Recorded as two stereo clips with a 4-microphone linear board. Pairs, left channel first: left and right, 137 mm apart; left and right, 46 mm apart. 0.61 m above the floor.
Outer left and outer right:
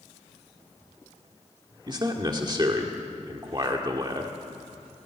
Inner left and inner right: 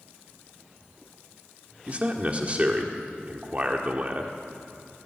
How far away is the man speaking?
About 1.6 m.